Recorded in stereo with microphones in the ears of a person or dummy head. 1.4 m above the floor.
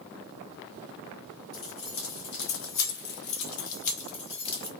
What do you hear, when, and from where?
1.5 s keys jangling: 35° left (ahead or behind), 1.1 m; by 4.7 s 20° left (ahead or behind), 1.2 m